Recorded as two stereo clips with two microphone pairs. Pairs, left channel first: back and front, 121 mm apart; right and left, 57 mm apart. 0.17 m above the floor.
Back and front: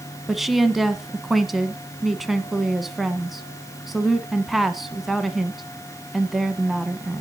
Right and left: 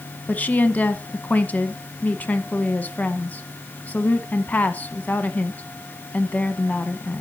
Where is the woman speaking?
90° right, 1.2 m.